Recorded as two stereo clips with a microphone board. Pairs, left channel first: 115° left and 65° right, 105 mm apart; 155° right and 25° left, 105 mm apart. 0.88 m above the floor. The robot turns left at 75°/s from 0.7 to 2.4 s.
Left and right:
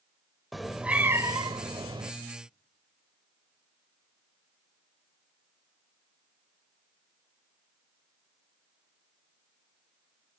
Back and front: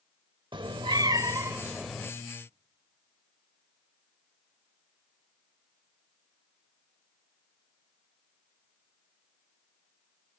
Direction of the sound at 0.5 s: 20° left.